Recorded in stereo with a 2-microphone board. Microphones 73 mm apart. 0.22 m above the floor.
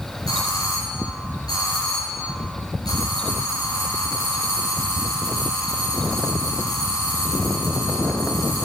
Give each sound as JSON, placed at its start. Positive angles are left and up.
{"t": 0.3, "sound": "a doorbell", "side_deg": 70, "distance_m": 5.0}